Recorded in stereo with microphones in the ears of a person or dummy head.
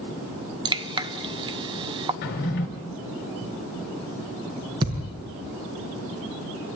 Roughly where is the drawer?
Left.